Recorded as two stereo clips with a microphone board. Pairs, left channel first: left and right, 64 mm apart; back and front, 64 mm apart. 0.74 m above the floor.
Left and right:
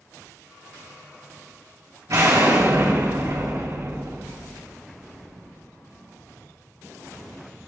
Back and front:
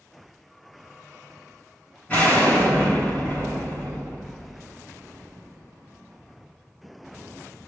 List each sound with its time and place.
2.1 s an explosion: 110° right, 3.5 m